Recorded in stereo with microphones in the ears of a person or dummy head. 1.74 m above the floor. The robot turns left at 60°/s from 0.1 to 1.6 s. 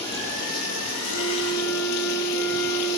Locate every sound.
0.0 s running water: 155° left, 10 m; by 3.0 s 65° left, 10 m
1.0 s a flute: 50° left, 8 m; by 3.0 s 15° left, 8 m